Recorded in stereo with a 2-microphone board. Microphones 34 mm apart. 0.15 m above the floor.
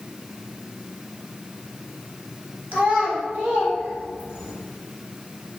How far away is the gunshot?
I don't hear a gunshot.